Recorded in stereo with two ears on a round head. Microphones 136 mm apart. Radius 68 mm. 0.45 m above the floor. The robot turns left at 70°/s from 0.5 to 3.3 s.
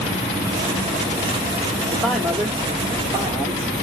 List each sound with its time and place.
1.9 s a man speaking: 5° left (ahead or behind), 0.9 m; by 3.7 s 20° right (ahead or behind), 0.9 m